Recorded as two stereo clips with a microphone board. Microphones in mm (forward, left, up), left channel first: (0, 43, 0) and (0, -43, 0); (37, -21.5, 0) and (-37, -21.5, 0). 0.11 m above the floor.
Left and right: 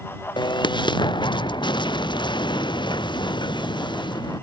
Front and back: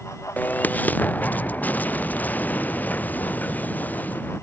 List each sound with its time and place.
0.4 s an explosion: 65° left